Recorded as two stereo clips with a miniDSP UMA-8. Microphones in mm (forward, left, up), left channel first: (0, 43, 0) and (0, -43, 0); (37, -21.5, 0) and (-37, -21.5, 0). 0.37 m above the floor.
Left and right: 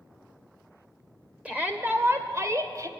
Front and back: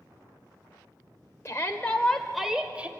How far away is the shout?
About 1.4 m.